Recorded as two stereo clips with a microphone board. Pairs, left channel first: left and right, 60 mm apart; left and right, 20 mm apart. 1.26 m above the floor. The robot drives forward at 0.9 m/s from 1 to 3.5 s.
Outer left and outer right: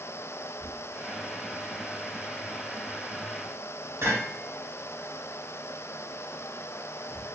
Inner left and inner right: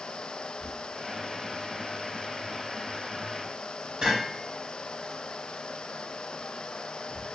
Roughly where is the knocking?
Right.